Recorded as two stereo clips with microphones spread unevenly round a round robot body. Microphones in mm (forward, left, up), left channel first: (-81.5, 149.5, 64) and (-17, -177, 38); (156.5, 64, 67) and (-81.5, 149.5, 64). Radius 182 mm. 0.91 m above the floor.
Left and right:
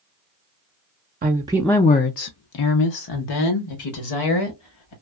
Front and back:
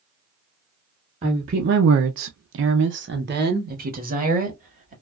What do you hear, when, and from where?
1.2 s a woman speaking: 135° right, 0.6 m; by 4.9 s 100° left, 1.9 m